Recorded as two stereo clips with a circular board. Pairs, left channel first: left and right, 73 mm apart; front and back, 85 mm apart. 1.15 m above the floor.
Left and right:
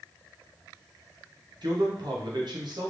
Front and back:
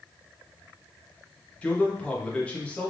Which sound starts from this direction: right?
A man speaking, at 1.6 s.